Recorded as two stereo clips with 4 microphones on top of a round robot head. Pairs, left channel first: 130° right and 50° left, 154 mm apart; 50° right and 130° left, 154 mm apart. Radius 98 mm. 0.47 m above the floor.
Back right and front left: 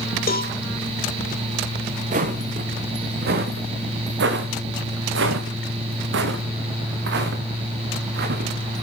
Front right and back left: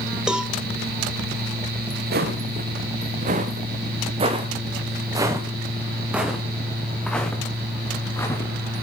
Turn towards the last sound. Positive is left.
turn(degrees=20)